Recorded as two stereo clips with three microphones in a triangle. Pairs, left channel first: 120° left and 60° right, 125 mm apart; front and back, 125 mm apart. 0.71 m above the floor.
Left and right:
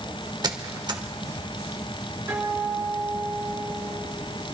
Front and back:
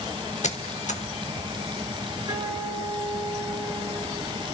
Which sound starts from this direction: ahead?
A squeak, at 0.4 s.